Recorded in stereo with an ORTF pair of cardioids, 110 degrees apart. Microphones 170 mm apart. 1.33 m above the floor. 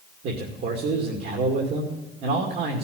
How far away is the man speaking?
About 2.5 m.